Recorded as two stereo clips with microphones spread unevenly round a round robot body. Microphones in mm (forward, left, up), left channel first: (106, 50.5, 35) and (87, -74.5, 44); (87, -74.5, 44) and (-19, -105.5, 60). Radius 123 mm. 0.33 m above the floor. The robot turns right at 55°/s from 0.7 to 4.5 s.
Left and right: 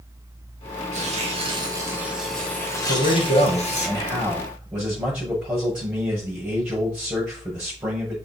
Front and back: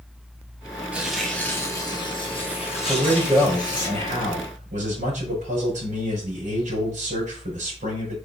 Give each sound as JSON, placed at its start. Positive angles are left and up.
{"t": 0.9, "sound": "tearing paper", "azimuth_deg": -85, "distance_m": 2.5}
{"t": 2.9, "sound": "a man speaking", "azimuth_deg": 90, "distance_m": 5.0}